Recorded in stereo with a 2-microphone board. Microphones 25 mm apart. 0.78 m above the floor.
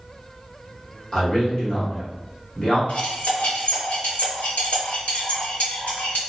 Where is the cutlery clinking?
80° left, 1.5 m.